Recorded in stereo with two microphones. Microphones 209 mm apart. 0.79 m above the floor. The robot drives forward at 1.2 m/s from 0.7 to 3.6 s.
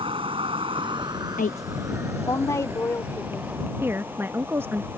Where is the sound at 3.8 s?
10° right (ahead or behind).